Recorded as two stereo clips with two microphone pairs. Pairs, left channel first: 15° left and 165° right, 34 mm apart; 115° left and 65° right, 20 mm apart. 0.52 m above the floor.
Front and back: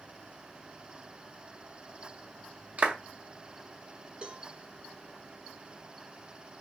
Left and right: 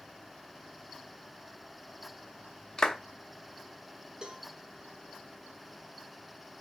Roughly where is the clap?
Behind left.